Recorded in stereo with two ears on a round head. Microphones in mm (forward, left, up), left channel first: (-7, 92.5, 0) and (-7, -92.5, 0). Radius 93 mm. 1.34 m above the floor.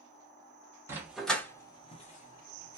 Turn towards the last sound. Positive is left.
turn(degrees=45)  # may be behind; listen again after turning